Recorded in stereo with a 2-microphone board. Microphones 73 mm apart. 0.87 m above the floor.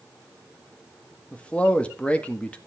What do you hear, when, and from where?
1.3 s a man speaking: 15° left (ahead or behind), 1.4 m